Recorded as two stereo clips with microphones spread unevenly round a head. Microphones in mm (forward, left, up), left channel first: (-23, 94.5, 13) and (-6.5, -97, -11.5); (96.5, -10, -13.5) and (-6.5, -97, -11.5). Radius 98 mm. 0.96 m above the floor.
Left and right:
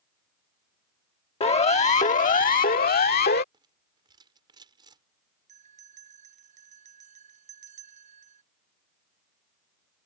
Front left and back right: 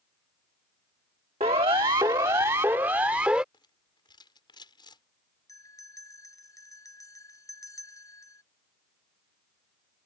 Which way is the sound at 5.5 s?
25° right.